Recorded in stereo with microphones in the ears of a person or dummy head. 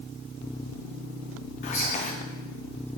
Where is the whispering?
40° left (ahead or behind), 0.5 m.